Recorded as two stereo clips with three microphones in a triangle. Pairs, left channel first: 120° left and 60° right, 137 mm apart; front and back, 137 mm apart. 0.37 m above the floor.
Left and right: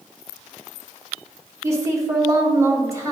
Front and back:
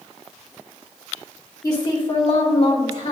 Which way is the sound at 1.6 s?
20° right.